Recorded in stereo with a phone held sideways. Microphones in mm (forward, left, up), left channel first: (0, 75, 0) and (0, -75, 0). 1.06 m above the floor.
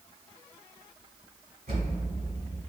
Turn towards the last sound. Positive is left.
turn(degrees=-75)  # may be behind; listen again after turning